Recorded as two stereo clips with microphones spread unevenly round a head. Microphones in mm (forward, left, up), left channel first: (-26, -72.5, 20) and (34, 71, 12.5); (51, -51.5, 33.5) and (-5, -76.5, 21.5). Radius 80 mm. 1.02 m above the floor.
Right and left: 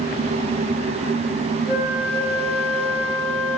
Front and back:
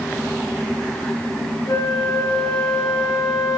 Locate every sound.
1.7 s a flute: 5° left, 1.1 m